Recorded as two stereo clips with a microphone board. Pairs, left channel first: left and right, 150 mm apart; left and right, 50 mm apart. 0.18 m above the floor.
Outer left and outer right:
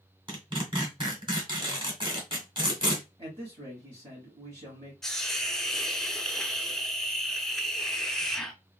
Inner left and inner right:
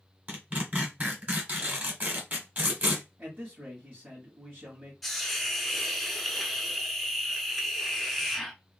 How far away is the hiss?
About 0.7 m.